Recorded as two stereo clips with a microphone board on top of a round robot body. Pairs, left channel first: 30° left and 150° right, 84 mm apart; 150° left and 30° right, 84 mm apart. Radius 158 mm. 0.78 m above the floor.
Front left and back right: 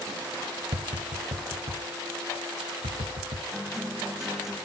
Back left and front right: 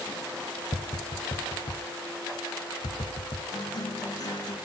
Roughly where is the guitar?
Behind left.